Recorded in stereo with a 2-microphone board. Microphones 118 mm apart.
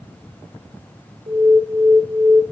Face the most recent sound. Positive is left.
turn(degrees=-55)  # may be behind; listen again after turning